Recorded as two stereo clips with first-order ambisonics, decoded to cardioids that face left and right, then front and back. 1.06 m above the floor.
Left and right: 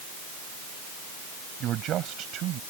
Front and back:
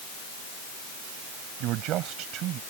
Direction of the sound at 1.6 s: 140° right.